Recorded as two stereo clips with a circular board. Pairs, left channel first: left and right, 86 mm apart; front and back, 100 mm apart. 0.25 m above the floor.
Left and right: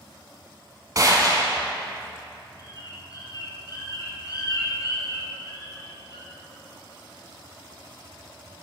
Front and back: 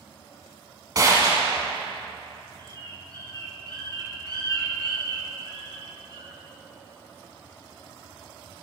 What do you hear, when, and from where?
0.9 s a gunshot: 135° right, 1.4 m
2.6 s a bird: 135° left, 2 m